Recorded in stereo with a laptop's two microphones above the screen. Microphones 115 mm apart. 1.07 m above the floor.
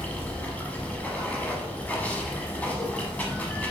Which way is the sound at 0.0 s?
10° left (ahead or behind).